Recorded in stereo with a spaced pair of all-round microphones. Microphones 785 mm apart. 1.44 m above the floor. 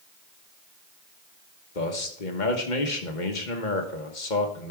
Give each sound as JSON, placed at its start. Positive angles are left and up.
{"t": 1.8, "sound": "a man speaking", "side_deg": 70, "distance_m": 1.5}